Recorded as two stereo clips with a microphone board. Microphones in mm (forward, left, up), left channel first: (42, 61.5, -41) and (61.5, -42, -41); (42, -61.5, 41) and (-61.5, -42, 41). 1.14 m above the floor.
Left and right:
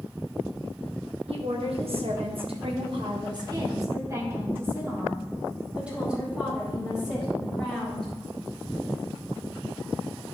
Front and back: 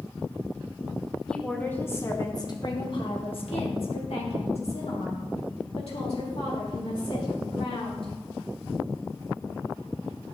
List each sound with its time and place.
1.3 s a woman speaking: 95° right, 1.6 m; by 8.1 s 10° left, 4 m